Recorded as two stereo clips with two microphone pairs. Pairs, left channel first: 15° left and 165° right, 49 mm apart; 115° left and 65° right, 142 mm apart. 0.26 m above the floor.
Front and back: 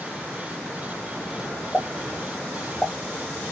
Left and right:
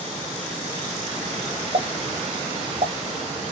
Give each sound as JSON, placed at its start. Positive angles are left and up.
{"t": 1.7, "sound": "a pop", "azimuth_deg": -55, "distance_m": 1.0}